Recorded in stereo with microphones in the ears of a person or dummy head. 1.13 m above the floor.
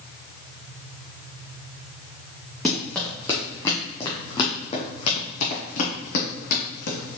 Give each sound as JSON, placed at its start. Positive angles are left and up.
{"t": 2.6, "sound": "running footsteps", "side_deg": 5, "distance_m": 3.0}